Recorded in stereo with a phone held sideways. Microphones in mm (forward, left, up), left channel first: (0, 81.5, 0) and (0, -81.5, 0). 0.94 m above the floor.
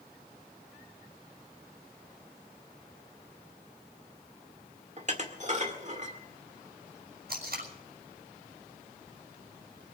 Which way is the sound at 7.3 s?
70° right (ahead or behind).